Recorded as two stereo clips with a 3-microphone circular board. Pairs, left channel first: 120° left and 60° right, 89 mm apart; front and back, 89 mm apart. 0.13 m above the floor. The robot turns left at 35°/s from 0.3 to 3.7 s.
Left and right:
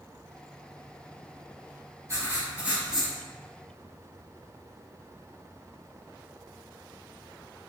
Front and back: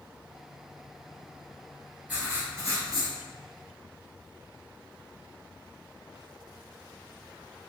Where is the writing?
115° right, 1.1 m; by 3.1 s 150° right, 1.1 m.